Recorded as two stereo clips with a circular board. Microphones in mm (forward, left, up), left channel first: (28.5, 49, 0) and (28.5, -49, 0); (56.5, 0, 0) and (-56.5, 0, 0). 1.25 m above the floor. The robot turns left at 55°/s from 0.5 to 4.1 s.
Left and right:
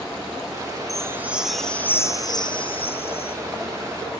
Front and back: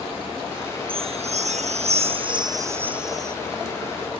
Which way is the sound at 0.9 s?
145° right.